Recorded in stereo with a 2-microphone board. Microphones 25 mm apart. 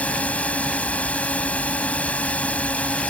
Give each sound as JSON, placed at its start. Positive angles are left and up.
{"t": 0.0, "sound": "a drone", "side_deg": 70}